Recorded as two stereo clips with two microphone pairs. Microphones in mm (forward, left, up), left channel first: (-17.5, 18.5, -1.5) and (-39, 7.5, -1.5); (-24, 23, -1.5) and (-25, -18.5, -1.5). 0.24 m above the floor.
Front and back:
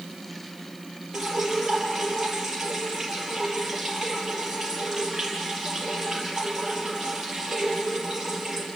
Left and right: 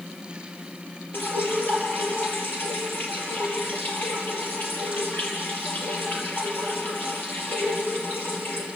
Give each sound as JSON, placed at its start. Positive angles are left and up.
{"t": 1.1, "sound": "dripping", "azimuth_deg": 125, "distance_m": 4.5}